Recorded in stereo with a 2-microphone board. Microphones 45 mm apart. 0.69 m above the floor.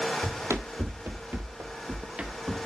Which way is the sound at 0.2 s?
60° right (ahead or behind).